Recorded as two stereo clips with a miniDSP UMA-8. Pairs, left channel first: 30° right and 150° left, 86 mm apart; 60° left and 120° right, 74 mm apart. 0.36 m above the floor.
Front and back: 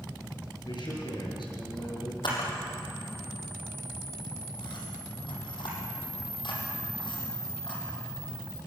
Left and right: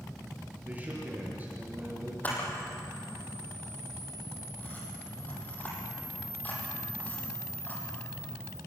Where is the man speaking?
55° right, 6.5 m.